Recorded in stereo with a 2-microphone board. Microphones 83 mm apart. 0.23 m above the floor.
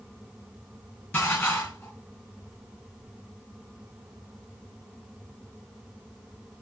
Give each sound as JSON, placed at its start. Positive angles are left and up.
{"t": 1.1, "sound": "dishes clattering", "side_deg": 20, "distance_m": 1.5}